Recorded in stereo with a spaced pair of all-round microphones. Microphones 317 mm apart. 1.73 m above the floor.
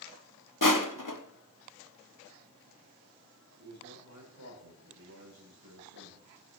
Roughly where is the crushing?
Left.